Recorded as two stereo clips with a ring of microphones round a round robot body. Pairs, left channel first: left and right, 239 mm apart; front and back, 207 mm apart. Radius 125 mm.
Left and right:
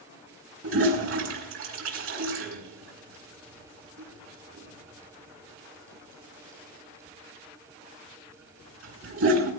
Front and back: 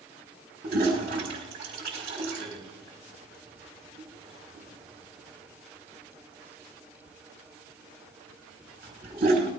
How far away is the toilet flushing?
About 3.5 m.